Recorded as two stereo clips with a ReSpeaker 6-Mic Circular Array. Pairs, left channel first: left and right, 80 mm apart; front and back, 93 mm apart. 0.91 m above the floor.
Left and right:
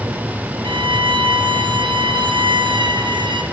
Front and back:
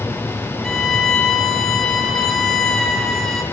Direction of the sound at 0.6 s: 85° right.